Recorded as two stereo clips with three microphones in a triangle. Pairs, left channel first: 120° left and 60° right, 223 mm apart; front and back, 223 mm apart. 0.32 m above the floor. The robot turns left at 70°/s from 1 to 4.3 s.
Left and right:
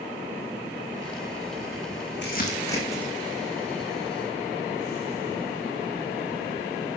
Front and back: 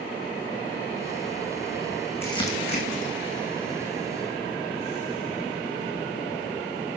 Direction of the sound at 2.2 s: 80° left.